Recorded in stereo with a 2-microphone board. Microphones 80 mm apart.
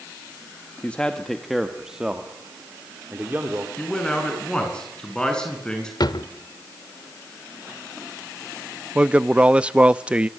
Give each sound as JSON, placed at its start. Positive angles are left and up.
{"t": 0.8, "sound": "a man speaking", "side_deg": 15, "distance_m": 1.2}
{"t": 3.8, "sound": "a man speaking", "side_deg": 10, "distance_m": 7.0}
{"t": 6.0, "sound": "a drawer", "side_deg": 65, "distance_m": 1.0}
{"t": 8.9, "sound": "a man speaking", "side_deg": -15, "distance_m": 0.5}